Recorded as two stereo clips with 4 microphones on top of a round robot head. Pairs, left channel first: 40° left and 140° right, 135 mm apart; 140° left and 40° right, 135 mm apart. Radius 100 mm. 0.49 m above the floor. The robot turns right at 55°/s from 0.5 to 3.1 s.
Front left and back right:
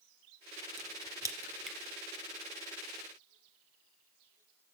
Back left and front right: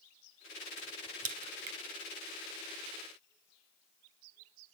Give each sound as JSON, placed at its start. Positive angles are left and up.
{"t": 0.8, "sound": "a crack", "azimuth_deg": -100, "distance_m": 0.7}